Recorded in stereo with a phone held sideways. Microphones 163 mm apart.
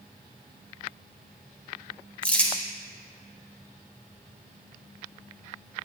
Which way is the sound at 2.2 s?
10° left (ahead or behind).